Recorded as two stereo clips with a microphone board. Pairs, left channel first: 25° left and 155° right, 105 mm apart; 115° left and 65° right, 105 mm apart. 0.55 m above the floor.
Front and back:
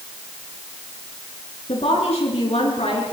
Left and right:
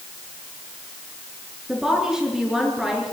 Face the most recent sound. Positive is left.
turn(degrees=15)